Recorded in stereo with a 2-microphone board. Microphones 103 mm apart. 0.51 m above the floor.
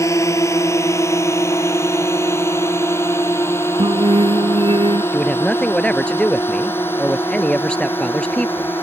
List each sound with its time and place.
0.0 s a drone: 30° left (ahead or behind); by 8.8 s 20° left (ahead or behind)
3.8 s singing: 60° right (ahead or behind)
5.1 s a man speaking: 10° left (ahead or behind)